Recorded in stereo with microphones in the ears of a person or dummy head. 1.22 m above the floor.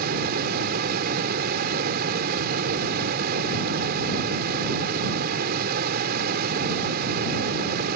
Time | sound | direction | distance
0.0 | a fan | 50° right (ahead or behind) | ?